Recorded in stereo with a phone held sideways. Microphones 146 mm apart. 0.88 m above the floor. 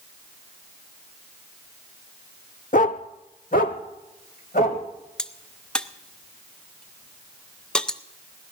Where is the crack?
5° left (ahead or behind), 0.5 m.